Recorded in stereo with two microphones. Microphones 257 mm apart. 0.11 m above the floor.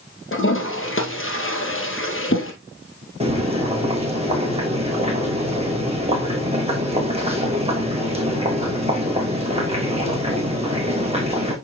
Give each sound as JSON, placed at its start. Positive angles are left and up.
{"t": 0.3, "sound": "a toilet flushing", "side_deg": 50, "distance_m": 2.0}
{"t": 3.2, "sound": "boiling", "side_deg": -20, "distance_m": 2.5}